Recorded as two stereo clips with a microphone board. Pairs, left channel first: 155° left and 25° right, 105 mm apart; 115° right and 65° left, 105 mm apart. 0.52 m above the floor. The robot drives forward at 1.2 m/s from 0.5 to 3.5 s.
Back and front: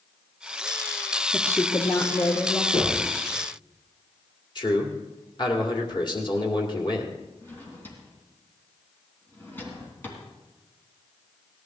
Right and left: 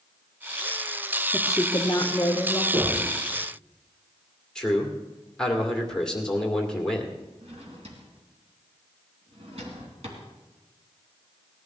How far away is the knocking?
About 5.5 m.